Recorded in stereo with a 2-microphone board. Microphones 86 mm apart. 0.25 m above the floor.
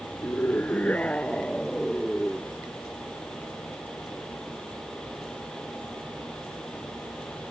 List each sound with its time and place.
0.2 s a scream: 25° left (ahead or behind); by 2.6 s centre (ahead or behind)